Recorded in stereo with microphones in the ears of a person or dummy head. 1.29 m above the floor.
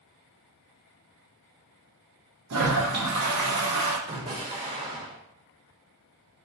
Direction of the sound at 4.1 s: 25° right (ahead or behind).